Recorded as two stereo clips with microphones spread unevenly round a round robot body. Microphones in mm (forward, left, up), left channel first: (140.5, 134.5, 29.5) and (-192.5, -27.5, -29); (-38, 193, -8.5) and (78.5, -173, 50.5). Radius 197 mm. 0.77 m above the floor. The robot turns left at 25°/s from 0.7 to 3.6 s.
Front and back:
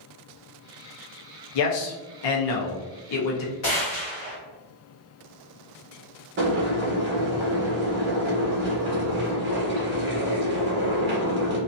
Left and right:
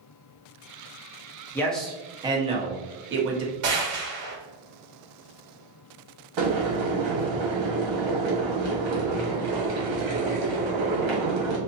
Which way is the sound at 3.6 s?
35° right.